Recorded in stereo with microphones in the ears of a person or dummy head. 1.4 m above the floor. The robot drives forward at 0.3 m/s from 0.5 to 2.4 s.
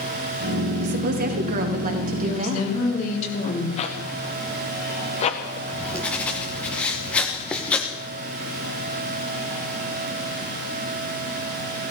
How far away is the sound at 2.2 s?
About 3.5 m.